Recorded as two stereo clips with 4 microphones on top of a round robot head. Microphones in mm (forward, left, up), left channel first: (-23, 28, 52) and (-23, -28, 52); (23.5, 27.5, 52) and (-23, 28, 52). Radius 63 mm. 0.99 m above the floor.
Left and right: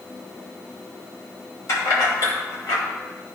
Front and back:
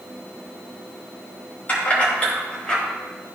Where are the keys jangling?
55° left, 3 m; by 2.8 s 70° left, 2.5 m.